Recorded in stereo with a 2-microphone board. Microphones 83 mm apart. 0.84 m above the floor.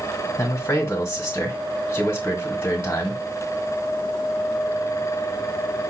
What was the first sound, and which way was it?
A man speaking, 30° left (ahead or behind).